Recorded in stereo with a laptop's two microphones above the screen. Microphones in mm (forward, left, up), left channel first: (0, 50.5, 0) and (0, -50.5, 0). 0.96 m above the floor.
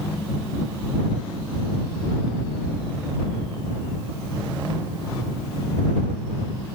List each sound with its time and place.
Only background noise.